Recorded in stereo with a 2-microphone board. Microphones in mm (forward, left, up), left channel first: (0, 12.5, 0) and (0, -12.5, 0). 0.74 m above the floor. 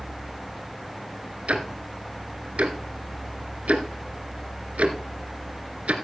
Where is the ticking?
75° right (ahead or behind), 2 m.